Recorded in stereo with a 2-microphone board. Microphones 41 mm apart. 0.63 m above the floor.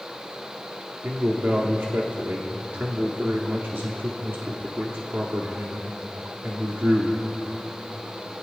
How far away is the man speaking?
About 1.0 m.